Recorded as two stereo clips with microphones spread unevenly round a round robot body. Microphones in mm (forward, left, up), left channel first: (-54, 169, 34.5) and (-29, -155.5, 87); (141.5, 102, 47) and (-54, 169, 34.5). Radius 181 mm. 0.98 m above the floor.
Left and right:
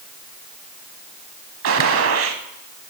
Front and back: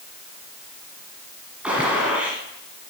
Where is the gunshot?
110° right, 1.2 m.